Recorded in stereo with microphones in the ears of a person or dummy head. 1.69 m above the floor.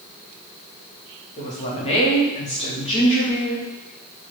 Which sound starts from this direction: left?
A woman speaking, at 1.4 s.